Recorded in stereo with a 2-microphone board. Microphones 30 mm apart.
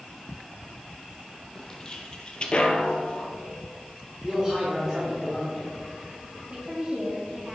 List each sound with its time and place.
1.6 s footsteps: 20° left (ahead or behind), 1.7 m; by 3.3 s 30° left (ahead or behind), 1.4 m
4.2 s a man speaking: 25° right (ahead or behind), 2 m
6.5 s a woman speaking: 35° right (ahead or behind), 2.0 m